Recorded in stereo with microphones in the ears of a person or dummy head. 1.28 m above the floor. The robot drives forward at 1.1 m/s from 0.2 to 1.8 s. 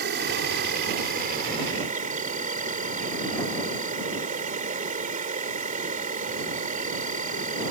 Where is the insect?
55° right (ahead or behind); by 7.7 s 40° right (ahead or behind).